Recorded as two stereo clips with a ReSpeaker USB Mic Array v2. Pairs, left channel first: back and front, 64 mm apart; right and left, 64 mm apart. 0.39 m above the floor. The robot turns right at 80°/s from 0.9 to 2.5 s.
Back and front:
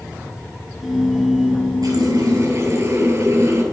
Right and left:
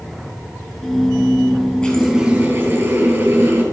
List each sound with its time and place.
1.8 s a running tap: 15° right, 5 m; by 3.6 s 35° left, 5 m